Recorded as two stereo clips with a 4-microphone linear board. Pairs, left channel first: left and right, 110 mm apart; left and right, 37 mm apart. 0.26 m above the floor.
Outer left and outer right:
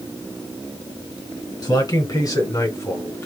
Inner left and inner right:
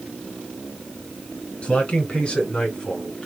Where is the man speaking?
40° left (ahead or behind), 3 m; by 3.3 s 25° left (ahead or behind), 2 m.